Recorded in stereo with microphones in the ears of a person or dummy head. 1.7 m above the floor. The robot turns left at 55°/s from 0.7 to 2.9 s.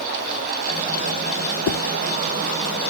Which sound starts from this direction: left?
A whoosh, at 1.7 s.